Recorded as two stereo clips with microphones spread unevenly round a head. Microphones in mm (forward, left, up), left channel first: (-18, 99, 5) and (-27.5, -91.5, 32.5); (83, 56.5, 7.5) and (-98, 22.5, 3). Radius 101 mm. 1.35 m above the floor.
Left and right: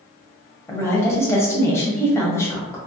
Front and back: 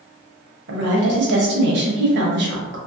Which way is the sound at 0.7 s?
165° left.